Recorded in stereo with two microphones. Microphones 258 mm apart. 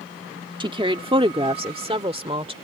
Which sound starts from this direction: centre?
A woman speaking, at 0.6 s.